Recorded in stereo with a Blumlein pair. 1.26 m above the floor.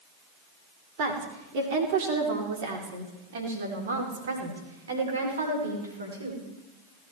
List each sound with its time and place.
1.0 s a woman speaking: 45° right, 4 m; by 6.4 s 75° right, 5.5 m